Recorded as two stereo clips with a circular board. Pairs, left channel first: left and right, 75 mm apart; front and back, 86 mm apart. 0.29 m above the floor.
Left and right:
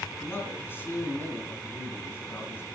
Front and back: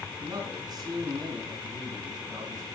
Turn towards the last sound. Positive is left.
turn(degrees=145)